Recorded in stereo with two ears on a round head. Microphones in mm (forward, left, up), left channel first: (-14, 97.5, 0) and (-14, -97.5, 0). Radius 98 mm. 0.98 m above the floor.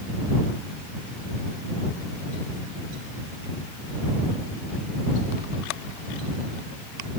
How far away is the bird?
I don't hear a bird.